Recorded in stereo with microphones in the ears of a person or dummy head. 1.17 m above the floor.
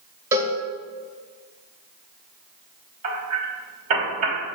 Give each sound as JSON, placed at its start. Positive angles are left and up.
{"t": 0.3, "sound": "a cowbell", "side_deg": -15, "distance_m": 1.3}
{"t": 3.0, "sound": "hammering", "side_deg": -40, "distance_m": 3.0}